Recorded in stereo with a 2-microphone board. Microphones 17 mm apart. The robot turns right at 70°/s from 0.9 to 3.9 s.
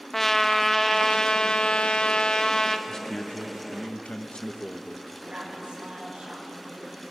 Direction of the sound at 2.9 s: 30° left.